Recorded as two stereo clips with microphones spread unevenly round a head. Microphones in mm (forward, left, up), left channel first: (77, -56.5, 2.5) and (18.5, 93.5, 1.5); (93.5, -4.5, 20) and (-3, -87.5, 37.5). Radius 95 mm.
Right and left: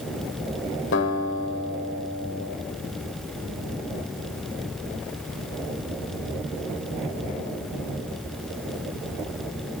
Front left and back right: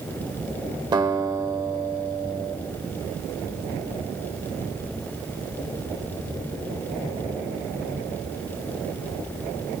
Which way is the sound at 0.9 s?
80° right.